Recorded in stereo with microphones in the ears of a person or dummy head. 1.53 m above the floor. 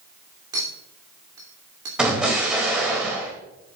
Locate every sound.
0.5 s a clink: 15° right (ahead or behind), 3 m
2.0 s an explosion: 5° right (ahead or behind), 2.5 m